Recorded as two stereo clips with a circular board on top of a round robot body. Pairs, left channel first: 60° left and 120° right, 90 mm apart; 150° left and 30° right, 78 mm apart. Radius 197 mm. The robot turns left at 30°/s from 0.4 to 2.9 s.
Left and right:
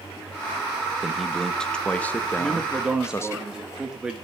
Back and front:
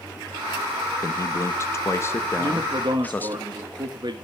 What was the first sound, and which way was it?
A man speaking, 155° left.